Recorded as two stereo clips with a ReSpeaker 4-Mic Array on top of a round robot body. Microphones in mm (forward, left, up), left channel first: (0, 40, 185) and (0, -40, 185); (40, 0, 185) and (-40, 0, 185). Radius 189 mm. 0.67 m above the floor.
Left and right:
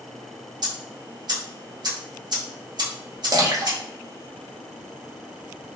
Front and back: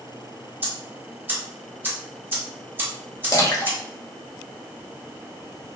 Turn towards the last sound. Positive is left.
turn(degrees=-50)